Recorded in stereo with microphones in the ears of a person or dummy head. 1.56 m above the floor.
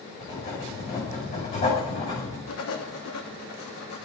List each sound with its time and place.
0.2 s writing: 35° left (ahead or behind), 7.5 m
2.5 s writing: 75° left (ahead or behind), 2.5 m